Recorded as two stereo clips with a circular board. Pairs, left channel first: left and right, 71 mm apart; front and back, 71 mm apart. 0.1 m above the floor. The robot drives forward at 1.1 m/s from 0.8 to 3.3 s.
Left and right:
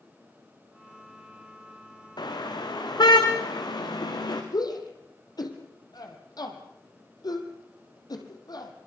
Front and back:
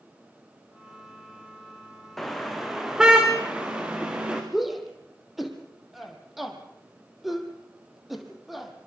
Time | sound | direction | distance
2.2 | a car horn | 85° left | 4.5 m
4.5 | a shout | 90° left | 4 m